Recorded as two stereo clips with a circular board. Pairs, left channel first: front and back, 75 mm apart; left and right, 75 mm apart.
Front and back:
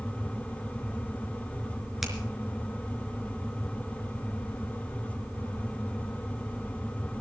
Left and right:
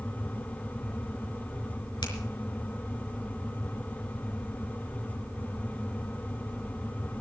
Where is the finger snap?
95° left, 4 m.